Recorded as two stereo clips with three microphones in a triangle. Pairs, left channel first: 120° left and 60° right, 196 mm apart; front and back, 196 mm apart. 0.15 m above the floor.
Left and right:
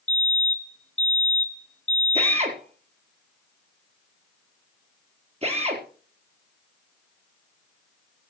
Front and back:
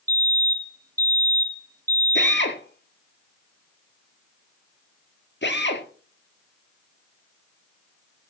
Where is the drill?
5° right, 4.5 m.